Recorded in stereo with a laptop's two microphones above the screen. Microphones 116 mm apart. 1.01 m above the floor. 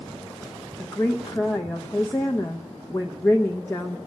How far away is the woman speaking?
About 0.8 m.